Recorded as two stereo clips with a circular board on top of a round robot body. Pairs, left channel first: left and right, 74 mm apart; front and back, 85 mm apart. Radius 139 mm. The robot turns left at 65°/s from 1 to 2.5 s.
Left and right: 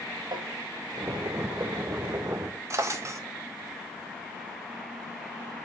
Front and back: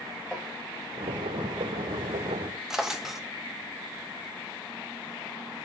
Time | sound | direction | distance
0.3 | tapping | 95° right | 1.6 m
2.7 | a drawer | 100° right | 0.7 m